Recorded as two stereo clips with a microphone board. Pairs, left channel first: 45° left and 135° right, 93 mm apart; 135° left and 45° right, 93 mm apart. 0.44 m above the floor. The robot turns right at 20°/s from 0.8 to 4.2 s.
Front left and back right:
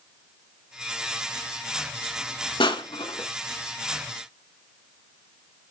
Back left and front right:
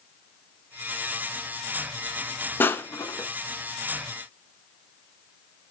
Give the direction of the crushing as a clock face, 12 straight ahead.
10 o'clock.